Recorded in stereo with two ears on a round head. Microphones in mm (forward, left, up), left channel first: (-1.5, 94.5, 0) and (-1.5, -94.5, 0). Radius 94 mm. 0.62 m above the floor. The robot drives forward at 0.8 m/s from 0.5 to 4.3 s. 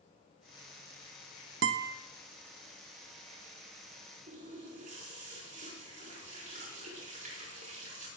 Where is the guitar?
60° right (ahead or behind), 0.7 m; by 2.0 s 45° right (ahead or behind), 0.9 m.